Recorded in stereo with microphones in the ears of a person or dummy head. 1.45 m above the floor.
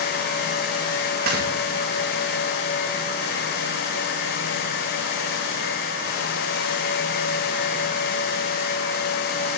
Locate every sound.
1.3 s snoring: 55° right (ahead or behind), 2 m